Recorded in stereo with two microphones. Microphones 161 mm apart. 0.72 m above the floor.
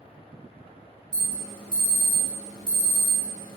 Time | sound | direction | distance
1.1 | an alarm | 30° left (ahead or behind) | 2 m